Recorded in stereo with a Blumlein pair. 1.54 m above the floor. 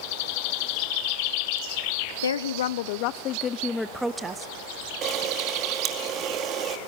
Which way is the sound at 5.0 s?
30° right.